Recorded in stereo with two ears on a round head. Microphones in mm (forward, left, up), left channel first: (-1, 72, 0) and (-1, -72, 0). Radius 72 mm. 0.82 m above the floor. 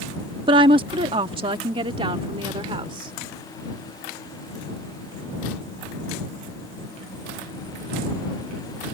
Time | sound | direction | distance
0.5 | a woman speaking | 30° right (ahead or behind) | ?